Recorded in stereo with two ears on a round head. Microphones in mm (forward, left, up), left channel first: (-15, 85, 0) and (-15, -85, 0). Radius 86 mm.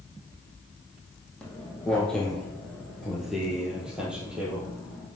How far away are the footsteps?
About 2 m.